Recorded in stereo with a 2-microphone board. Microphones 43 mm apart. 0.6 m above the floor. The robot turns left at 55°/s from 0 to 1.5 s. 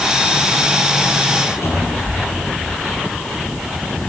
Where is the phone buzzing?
I don't hear a phone buzzing.